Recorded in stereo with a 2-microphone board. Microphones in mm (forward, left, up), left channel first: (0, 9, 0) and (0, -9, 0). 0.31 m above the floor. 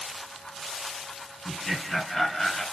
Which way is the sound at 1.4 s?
20° left (ahead or behind).